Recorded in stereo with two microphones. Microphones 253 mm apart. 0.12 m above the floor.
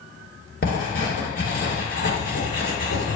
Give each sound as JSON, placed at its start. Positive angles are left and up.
{"t": 0.6, "sound": "writing", "side_deg": 35, "distance_m": 2.0}